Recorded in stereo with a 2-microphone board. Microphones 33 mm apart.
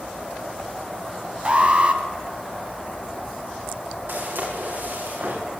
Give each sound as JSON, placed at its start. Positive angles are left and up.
{"t": 1.4, "sound": "an alarm", "side_deg": -35, "distance_m": 2.0}
{"t": 4.1, "sound": "footsteps", "side_deg": -85, "distance_m": 8.5}